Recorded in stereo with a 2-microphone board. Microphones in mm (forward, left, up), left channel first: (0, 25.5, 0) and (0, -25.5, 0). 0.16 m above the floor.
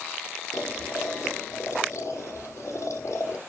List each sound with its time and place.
0.5 s boiling: 75° left (ahead or behind), 5 m